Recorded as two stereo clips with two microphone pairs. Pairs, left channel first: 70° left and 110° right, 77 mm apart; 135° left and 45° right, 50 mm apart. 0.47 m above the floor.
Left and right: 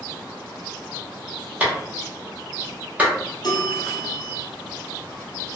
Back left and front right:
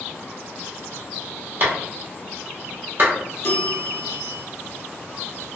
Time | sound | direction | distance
1.6 | a clap | 50° right | 1.1 m
3.4 | a bell | 95° left | 1.4 m